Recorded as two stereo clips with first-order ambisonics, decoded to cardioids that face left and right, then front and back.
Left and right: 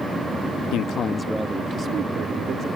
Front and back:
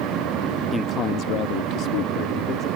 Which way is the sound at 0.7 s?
75° left.